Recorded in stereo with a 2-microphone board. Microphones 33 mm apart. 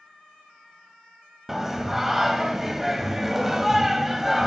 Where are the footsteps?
No footsteps in this recording.